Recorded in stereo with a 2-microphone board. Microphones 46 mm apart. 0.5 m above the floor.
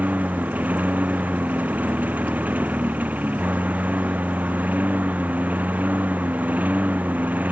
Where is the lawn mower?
35° right (ahead or behind).